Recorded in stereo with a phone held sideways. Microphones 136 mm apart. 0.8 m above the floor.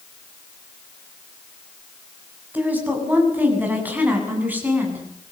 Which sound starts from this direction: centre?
A woman speaking, at 2.5 s.